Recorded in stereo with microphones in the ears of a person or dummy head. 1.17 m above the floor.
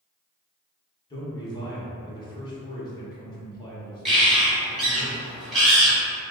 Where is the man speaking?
25° left (ahead or behind), 1.2 m.